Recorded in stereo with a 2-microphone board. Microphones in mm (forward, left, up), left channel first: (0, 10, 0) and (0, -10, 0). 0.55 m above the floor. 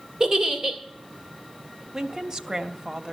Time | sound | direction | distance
0.2 | a giggle | 35° right (ahead or behind) | 2 m
1.9 | a woman speaking | 30° right (ahead or behind) | 0.7 m